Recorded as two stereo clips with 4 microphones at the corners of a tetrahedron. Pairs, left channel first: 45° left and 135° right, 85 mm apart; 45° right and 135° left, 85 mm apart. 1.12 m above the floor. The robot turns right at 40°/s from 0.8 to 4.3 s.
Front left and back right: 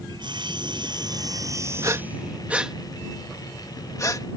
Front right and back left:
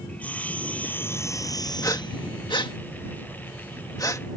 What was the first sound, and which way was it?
Sawing, 115° right.